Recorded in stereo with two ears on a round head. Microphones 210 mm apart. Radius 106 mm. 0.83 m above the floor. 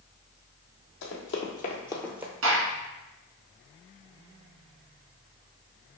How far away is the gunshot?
About 1.5 m.